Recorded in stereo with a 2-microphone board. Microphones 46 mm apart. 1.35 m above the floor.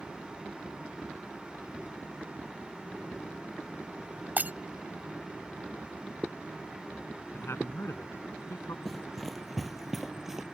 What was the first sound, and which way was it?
Breaking glass, 40° right (ahead or behind).